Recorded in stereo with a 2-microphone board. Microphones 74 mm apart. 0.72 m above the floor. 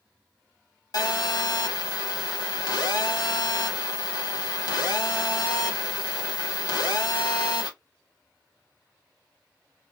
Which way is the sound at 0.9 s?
60° left (ahead or behind).